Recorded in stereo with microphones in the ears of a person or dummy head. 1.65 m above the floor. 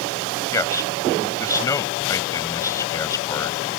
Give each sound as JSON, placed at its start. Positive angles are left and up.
{"t": 0.5, "sound": "a man speaking", "side_deg": 15}